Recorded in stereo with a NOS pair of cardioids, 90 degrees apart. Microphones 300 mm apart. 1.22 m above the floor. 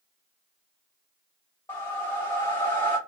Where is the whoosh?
10° left, 1.2 m.